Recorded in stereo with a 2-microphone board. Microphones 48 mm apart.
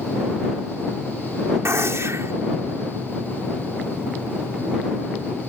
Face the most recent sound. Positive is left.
turn(degrees=-80)